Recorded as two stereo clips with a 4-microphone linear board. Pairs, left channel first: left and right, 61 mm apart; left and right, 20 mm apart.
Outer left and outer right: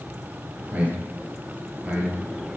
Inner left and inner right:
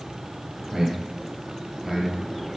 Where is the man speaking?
25° right (ahead or behind), 1.9 m.